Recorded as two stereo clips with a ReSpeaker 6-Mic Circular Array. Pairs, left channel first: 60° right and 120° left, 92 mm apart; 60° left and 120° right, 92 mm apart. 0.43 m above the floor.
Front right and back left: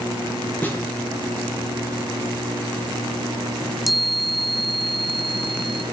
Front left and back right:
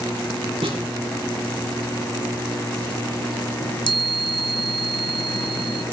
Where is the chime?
30° left, 1.1 m.